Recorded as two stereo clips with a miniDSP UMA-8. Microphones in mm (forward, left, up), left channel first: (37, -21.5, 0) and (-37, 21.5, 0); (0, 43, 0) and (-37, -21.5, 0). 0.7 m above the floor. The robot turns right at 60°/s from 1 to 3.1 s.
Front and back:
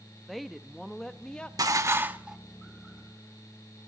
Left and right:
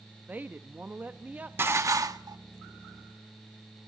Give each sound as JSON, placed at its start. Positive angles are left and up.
{"t": 0.3, "sound": "a woman speaking", "azimuth_deg": -115, "distance_m": 0.6}
{"t": 1.6, "sound": "dishes clattering", "azimuth_deg": -175, "distance_m": 0.8}